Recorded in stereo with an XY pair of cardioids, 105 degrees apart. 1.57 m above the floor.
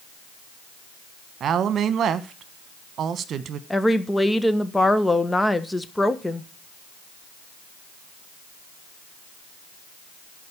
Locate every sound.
1.4 s a woman speaking: 60° right, 1.3 m
3.7 s a woman speaking: 10° left, 1.3 m